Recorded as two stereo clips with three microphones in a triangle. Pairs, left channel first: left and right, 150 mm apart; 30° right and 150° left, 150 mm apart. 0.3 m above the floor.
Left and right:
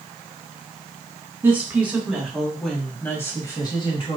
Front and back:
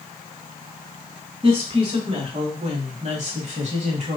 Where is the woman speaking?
165° right, 1.8 m; by 4.2 s 125° left, 1.3 m.